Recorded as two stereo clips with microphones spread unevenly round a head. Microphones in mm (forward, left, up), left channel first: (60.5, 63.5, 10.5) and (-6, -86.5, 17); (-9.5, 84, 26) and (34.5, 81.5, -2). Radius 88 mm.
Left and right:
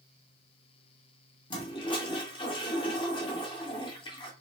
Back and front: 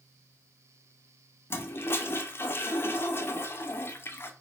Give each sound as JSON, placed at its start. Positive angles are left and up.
{"t": 1.5, "sound": "a toilet flushing", "azimuth_deg": 130, "distance_m": 0.6}